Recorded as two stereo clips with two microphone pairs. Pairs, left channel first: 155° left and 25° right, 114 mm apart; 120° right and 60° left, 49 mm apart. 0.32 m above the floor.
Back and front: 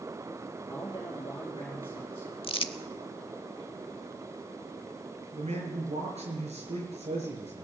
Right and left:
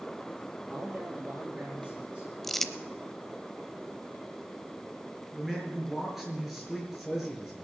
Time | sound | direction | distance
0.7 | a man speaking | 115° left | 4 m
2.4 | crumpling | 160° left | 0.7 m
5.3 | a man speaking | 25° right | 5.5 m